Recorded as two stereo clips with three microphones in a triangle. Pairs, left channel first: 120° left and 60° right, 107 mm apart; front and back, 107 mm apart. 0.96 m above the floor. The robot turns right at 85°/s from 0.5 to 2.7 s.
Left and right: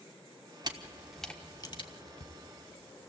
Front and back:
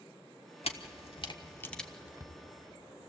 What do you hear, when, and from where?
0.6 s a camera shutter: 15° right, 1.2 m; by 2.3 s 130° left, 1.2 m